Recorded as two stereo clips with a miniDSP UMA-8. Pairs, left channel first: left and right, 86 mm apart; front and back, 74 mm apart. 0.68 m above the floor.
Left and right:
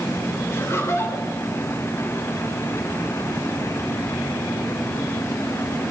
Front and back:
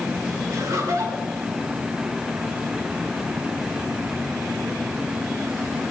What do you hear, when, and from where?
0.5 s laughter: 145° left, 3 m